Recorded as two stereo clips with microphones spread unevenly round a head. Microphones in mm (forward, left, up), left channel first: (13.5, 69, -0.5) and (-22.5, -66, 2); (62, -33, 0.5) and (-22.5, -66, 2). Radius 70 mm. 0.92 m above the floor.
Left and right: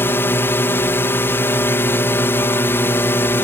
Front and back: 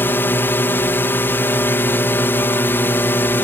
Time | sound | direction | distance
0.0 | a drone | 30° left | ?